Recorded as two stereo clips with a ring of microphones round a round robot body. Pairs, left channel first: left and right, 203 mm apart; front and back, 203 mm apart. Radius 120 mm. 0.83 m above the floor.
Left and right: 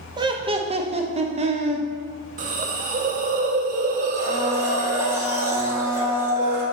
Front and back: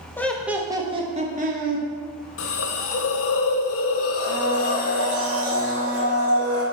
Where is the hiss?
30° right, 0.6 m.